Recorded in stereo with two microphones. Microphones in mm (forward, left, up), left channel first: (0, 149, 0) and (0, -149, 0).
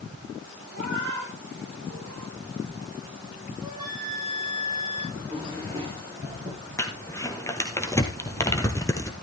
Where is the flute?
15° right (ahead or behind), 10 m.